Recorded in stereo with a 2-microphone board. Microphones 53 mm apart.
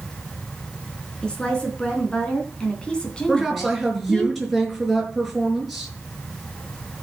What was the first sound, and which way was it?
A woman speaking, 15° left (ahead or behind).